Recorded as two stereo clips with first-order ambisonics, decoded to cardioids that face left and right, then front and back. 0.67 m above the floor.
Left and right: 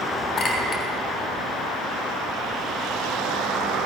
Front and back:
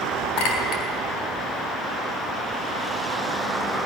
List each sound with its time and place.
0.4 s a clink: 20° left, 3 m